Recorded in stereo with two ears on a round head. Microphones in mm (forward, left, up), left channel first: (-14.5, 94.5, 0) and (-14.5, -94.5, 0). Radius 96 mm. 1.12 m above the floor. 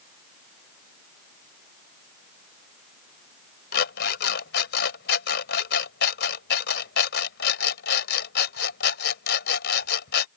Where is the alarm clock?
50° left (ahead or behind).